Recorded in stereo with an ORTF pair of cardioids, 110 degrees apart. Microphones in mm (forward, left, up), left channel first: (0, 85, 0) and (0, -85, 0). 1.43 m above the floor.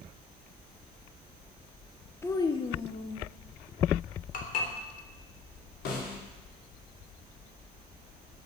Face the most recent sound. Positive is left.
turn(degrees=65)